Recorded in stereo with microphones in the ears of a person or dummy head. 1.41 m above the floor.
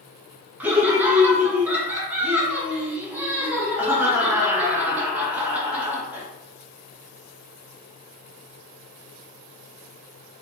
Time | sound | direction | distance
0.6 | laughter | 10° right (ahead or behind) | 0.6 m